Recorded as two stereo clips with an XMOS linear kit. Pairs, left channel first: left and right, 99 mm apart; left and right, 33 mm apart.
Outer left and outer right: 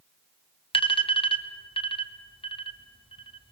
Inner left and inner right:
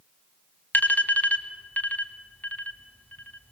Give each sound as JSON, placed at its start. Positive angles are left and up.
{"t": 0.7, "sound": "an alarm", "side_deg": 60, "distance_m": 1.4}